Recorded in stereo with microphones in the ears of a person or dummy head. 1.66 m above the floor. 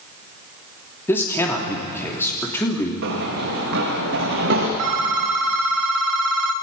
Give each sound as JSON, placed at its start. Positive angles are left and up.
{"t": 1.1, "sound": "a man speaking", "side_deg": 20, "distance_m": 3.0}
{"t": 3.0, "sound": "running footsteps", "side_deg": -55, "distance_m": 7.0}
{"t": 4.8, "sound": "a phone ringing", "side_deg": -50, "distance_m": 0.8}